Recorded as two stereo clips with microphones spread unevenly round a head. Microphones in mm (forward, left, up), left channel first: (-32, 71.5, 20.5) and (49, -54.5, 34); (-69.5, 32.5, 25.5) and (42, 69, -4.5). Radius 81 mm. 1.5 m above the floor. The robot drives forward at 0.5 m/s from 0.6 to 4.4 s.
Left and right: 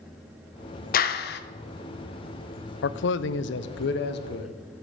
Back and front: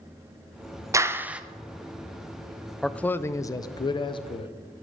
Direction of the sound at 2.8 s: 110° left.